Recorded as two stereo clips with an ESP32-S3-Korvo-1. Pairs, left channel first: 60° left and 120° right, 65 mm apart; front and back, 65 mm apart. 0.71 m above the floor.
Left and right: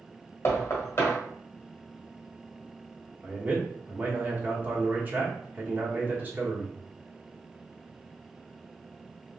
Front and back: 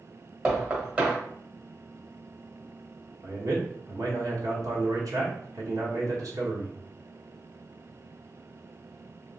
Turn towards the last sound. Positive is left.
turn(degrees=180)